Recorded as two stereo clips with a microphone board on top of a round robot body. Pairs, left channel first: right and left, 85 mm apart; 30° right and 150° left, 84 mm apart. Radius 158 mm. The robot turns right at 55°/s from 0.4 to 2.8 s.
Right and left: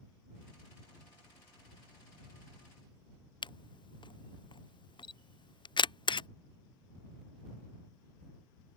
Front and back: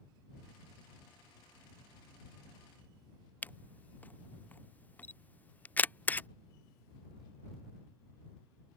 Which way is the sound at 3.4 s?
100° right.